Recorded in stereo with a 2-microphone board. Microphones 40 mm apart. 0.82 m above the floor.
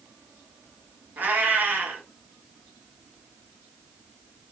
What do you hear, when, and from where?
1.2 s a cat meowing: 45° right (ahead or behind), 1.0 m